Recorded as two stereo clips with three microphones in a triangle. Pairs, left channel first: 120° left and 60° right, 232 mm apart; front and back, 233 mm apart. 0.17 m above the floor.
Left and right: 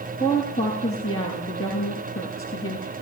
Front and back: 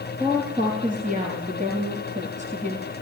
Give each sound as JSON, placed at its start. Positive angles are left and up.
{"t": 0.2, "sound": "a woman speaking", "azimuth_deg": 125, "distance_m": 5.0}